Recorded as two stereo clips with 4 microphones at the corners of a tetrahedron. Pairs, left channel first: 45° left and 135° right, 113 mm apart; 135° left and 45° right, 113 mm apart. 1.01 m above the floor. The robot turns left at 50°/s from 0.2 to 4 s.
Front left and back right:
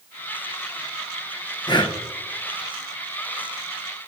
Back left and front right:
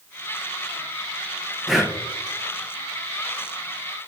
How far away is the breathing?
About 0.8 m.